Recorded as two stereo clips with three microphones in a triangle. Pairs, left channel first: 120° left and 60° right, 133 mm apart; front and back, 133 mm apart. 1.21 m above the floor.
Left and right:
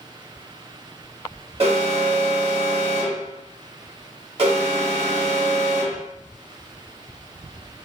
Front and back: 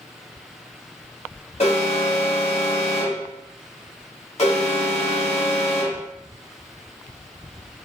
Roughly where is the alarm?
Ahead right.